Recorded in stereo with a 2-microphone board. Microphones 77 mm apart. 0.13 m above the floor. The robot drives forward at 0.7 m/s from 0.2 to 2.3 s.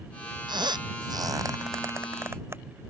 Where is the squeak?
85° right; by 2.6 s 35° right (ahead or behind).